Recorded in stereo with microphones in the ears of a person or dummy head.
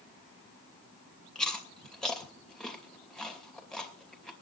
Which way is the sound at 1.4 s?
10° left (ahead or behind).